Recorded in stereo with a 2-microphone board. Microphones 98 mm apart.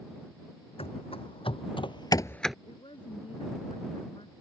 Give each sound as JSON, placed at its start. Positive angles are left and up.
{"t": 0.8, "sound": "running footsteps", "side_deg": 75}
{"t": 2.6, "sound": "a woman speaking", "side_deg": 65}